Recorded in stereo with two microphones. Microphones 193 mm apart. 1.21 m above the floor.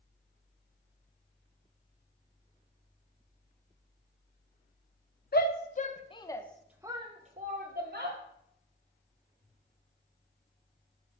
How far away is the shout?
About 1.0 m.